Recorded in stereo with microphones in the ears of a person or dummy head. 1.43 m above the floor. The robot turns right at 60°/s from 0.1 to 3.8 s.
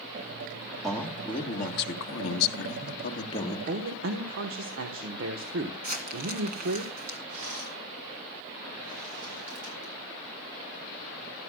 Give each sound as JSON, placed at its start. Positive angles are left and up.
{"t": 0.8, "sound": "a man speaking", "azimuth_deg": 0, "distance_m": 1.4}
{"t": 3.7, "sound": "a man speaking", "side_deg": -60, "distance_m": 1.3}
{"t": 5.8, "sound": "crumpling", "side_deg": -45, "distance_m": 2.5}
{"t": 7.3, "sound": "a rattle", "side_deg": -85, "distance_m": 7.0}